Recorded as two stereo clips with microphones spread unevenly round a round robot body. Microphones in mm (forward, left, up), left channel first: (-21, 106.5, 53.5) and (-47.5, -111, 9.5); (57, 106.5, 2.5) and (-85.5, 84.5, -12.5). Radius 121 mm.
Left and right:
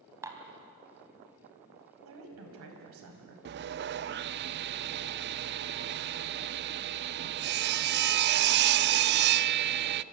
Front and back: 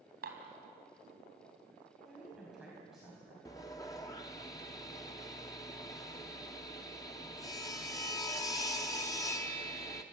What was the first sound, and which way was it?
Dishes clattering, 175° right.